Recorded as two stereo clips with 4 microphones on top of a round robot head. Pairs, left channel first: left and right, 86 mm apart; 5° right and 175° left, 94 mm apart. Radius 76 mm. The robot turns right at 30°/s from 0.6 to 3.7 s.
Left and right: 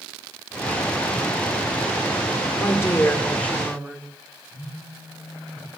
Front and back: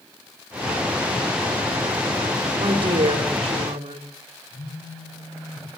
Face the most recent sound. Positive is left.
turn(degrees=30)